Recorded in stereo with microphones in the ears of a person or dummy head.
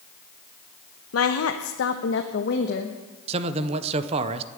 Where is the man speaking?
35° right (ahead or behind), 0.8 m.